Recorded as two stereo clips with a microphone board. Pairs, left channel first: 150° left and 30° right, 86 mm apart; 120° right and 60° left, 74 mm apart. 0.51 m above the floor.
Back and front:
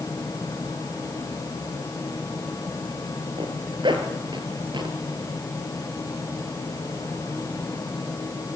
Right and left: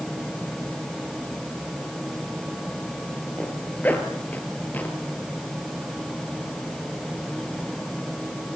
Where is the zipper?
50° right, 3.5 m.